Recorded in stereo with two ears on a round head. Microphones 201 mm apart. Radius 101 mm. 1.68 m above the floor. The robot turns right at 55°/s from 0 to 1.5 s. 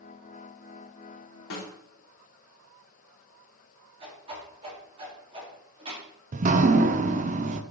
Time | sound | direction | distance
1.5 | a snare drum | 65° left (ahead or behind) | 3 m
4.0 | a whoosh | 25° right (ahead or behind) | 3.5 m
6.3 | dripping | 35° right (ahead or behind) | 0.6 m